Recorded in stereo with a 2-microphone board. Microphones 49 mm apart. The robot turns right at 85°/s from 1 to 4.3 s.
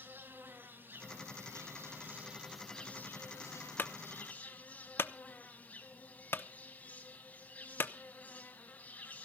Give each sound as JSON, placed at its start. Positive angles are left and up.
{"t": 0.0, "sound": "an insect", "azimuth_deg": -135, "distance_m": 3.5}
{"t": 3.8, "sound": "a clunk", "side_deg": 40, "distance_m": 0.8}